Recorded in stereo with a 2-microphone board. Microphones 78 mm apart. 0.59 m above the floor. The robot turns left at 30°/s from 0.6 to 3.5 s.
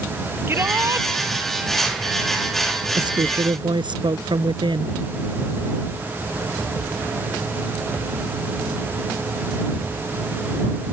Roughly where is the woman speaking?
Right.